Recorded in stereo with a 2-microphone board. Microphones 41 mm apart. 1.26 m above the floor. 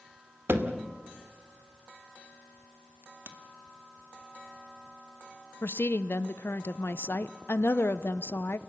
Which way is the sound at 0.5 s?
70° right (ahead or behind).